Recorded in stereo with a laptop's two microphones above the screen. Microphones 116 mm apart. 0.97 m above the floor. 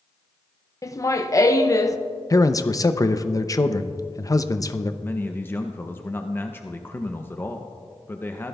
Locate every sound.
0.8 s laughter: 30° left (ahead or behind), 0.5 m
2.3 s a man speaking: 30° left (ahead or behind), 0.6 m
5.0 s a man speaking: 20° left (ahead or behind), 0.5 m